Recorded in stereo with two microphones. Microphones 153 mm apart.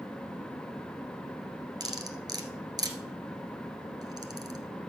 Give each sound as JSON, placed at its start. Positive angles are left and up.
{"t": 1.8, "sound": "cutlery clinking", "side_deg": -25, "distance_m": 1.2}